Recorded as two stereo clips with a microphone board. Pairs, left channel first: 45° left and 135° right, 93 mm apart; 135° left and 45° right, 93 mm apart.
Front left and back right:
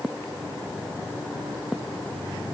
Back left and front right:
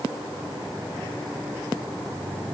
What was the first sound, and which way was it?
Only background noise.